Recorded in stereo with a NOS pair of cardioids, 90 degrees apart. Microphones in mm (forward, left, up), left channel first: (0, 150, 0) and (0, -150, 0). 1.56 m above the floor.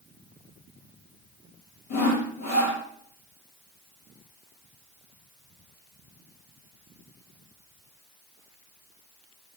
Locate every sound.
1.9 s sawing: 65° left, 7 m